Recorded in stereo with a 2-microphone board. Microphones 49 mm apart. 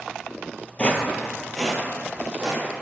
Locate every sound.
0.8 s footsteps: 25° left (ahead or behind), 0.6 m; by 2.6 s 20° right (ahead or behind), 1.2 m